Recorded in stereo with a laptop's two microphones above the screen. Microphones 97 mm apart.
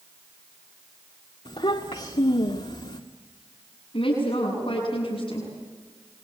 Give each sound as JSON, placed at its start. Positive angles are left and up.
{"t": 1.4, "sound": "a child speaking", "side_deg": 70, "distance_m": 1.7}
{"t": 3.9, "sound": "a woman speaking", "side_deg": 60, "distance_m": 8.5}